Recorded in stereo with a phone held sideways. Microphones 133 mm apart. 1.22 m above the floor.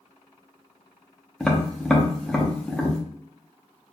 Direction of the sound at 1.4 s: 5° left (ahead or behind).